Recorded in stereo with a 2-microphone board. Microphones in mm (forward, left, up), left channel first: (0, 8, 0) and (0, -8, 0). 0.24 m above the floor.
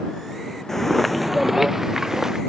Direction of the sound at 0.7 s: 30° left (ahead or behind).